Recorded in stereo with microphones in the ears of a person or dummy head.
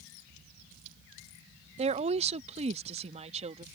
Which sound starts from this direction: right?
A woman speaking, at 1.8 s.